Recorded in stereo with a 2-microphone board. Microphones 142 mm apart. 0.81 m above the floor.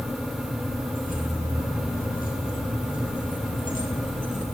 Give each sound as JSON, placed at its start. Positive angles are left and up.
{"t": 0.9, "sound": "keys jangling", "side_deg": 90, "distance_m": 6.0}